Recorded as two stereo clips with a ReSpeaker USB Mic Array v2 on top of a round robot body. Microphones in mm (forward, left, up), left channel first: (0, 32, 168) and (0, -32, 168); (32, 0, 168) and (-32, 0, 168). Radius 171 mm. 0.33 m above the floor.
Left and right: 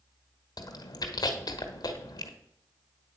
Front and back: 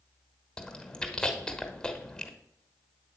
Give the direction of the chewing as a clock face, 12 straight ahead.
9 o'clock.